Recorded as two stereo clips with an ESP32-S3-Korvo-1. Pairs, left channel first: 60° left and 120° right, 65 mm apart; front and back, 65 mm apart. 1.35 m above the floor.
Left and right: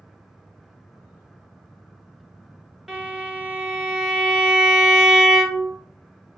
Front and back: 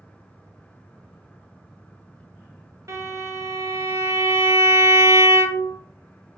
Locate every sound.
2.9 s a violin: 160° left, 0.6 m